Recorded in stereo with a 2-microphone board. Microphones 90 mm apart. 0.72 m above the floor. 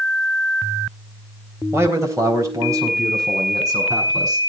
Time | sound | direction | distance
1.7 | a man speaking | 30° right (ahead or behind) | 3 m